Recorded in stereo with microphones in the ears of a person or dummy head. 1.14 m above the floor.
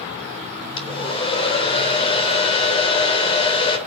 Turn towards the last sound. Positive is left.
turn(degrees=30)  # may be behind; listen again after turning